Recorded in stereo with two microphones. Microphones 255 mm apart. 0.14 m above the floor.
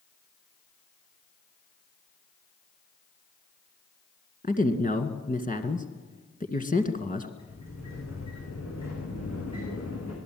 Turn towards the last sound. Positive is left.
turn(degrees=80)